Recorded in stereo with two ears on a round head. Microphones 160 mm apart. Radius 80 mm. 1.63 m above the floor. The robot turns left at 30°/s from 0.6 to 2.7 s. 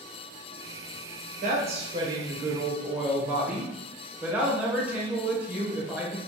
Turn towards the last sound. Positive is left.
turn(degrees=-170)